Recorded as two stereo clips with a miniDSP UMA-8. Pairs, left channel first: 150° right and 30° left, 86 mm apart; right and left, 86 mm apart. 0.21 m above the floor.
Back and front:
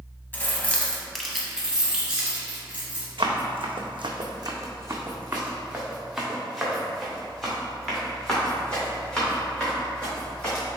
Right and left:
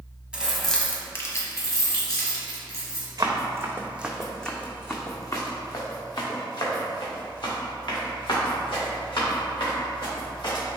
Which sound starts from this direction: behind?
Keys jangling, at 0.3 s.